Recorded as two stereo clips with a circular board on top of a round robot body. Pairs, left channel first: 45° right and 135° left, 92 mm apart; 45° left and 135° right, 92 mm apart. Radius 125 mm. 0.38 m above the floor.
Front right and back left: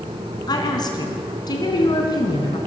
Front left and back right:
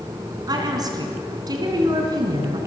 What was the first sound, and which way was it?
A woman speaking, 90° right.